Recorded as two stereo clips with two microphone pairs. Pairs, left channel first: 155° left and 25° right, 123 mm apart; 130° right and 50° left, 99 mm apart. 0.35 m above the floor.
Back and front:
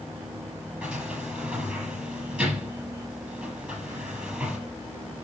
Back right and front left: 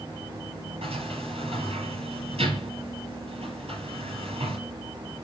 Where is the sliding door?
60° left, 4.5 m.